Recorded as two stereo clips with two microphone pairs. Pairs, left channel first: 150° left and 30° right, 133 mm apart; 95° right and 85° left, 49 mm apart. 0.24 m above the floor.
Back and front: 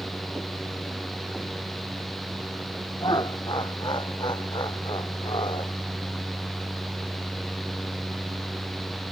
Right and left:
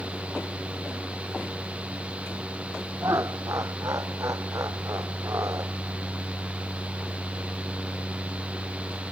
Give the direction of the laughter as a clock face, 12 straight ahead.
9 o'clock.